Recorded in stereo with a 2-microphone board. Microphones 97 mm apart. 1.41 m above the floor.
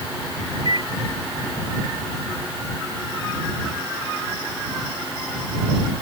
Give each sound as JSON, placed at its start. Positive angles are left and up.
{"t": 0.7, "sound": "a microwave", "side_deg": -55}